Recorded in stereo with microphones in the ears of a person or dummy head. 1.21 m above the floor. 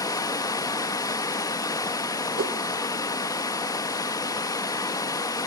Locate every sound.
0.0 s running water: 20° left (ahead or behind), 0.9 m
2.4 s a whoosh: 50° right (ahead or behind), 1.9 m